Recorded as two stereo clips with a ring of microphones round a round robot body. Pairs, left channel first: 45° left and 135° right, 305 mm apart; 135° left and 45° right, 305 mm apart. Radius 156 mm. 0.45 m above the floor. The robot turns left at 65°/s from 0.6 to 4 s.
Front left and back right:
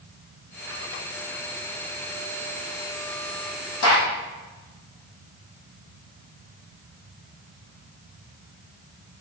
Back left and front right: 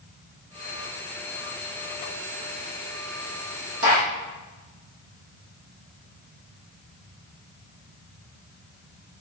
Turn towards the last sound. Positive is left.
turn(degrees=-10)